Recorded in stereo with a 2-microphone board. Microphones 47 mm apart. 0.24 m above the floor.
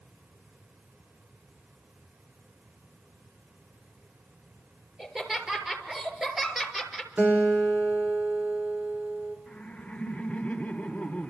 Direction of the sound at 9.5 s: 15° left (ahead or behind).